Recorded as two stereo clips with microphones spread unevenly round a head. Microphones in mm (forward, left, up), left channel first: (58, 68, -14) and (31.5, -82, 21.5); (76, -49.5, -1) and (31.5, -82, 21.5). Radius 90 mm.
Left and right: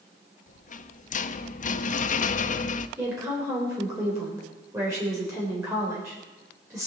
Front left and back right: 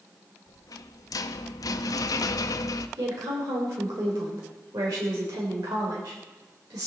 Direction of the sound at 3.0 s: 175° right.